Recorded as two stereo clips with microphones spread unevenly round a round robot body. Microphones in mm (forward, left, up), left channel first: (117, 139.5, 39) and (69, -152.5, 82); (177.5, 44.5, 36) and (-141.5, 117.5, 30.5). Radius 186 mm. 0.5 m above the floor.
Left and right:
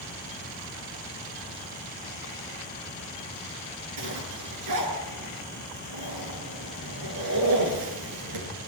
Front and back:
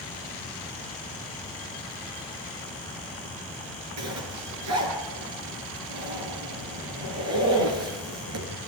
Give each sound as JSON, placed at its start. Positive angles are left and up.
{"t": 4.0, "sound": "a zipper", "azimuth_deg": -140, "distance_m": 6.0}